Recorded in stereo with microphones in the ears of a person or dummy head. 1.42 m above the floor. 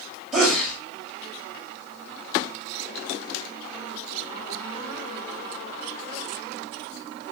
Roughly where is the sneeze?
Centre.